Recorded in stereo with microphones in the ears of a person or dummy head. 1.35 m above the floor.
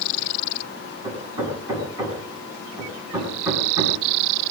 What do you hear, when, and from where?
1.0 s hammering: 15° right (ahead or behind), 6.5 m